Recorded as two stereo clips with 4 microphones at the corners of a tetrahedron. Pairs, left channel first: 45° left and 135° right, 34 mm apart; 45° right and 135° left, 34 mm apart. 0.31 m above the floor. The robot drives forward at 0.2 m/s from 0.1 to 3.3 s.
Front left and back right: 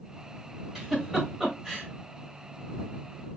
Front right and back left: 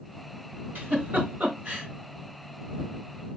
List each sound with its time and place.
0.8 s a giggle: 145° left, 3 m; by 1.9 s 150° left, 3 m